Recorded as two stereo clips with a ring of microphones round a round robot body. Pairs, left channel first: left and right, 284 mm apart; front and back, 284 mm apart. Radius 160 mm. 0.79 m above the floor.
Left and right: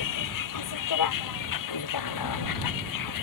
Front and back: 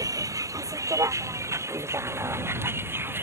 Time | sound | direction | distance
0.0 | a vehicle | 100° left | ?